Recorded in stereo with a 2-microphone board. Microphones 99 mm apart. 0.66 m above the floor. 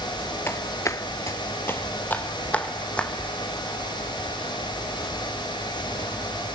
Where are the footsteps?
25° left (ahead or behind), 0.8 m; by 3.1 s 10° left (ahead or behind), 2.5 m.